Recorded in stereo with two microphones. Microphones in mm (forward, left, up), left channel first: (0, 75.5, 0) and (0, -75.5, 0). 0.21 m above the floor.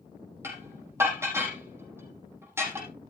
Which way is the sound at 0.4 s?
15° right (ahead or behind).